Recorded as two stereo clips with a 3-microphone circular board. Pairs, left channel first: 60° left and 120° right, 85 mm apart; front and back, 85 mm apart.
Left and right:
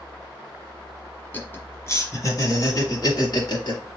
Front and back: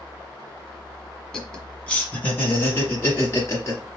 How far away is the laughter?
About 1.3 m.